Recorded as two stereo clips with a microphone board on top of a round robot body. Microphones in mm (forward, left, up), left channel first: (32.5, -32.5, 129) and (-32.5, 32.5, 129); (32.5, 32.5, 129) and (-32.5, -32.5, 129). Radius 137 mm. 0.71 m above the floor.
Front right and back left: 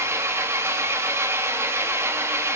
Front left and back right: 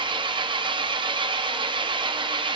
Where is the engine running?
165° right, 0.8 m.